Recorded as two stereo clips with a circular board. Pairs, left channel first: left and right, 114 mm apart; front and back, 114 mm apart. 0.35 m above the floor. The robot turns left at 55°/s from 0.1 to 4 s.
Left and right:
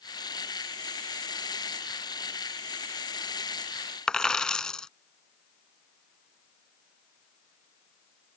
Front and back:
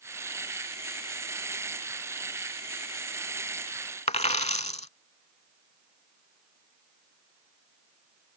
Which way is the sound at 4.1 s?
5° left.